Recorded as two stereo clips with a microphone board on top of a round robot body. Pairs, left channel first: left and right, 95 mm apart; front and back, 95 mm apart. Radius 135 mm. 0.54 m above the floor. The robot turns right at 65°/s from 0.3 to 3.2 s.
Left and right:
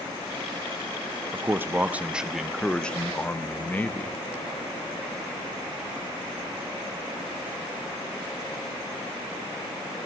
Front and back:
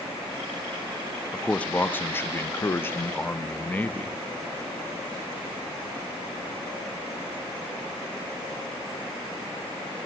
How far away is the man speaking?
About 0.7 m.